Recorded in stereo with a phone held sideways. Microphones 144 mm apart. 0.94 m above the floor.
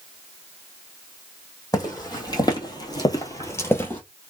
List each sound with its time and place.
1.7 s footsteps: 25° left (ahead or behind), 1.7 m; by 4.0 s 10° left (ahead or behind), 1.2 m